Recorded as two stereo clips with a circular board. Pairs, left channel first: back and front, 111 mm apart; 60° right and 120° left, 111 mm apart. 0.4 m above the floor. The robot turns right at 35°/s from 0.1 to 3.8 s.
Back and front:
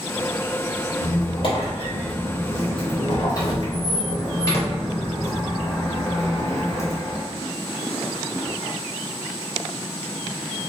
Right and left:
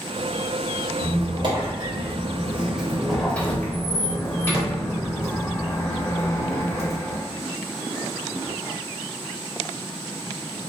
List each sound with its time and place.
1.0 s a squeak: 140° left, 0.7 m; by 7.2 s 120° right, 0.7 m